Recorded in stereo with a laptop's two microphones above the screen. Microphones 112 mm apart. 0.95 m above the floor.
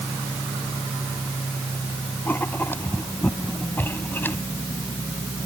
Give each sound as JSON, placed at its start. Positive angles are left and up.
{"t": 2.2, "sound": "writing", "side_deg": 20}